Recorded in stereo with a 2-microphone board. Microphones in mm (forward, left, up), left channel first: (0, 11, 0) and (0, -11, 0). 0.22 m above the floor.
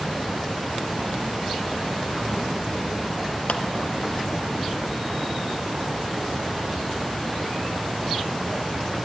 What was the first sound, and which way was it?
A clap, 60° left (ahead or behind).